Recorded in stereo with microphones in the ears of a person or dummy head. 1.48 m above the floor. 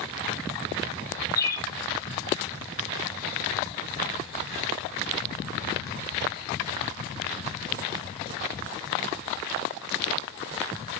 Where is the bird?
15° left (ahead or behind), 0.8 m.